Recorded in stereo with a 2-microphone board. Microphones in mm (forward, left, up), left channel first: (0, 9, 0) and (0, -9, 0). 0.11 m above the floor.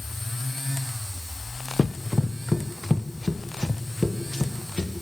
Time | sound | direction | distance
1.8 | running footsteps | 15° right (ahead or behind) | 0.9 m